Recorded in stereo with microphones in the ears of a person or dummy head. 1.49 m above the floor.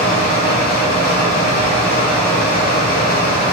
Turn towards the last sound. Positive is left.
turn(degrees=55)  # may be behind; listen again after turning